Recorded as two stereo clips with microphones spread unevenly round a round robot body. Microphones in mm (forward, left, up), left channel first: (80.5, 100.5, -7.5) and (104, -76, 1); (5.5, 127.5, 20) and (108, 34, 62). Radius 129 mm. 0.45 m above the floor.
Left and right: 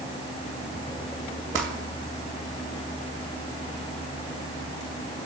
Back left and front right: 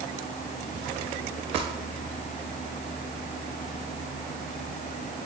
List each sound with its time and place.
1.6 s crumpling: 110° right, 1.8 m